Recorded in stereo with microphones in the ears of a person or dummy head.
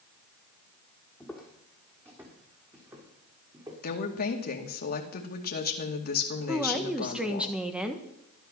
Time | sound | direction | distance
1.2 | footsteps | centre (ahead or behind) | 3 m
3.8 | a woman speaking | 55° left (ahead or behind) | 2 m
6.5 | a woman speaking | 5° right (ahead or behind) | 1.5 m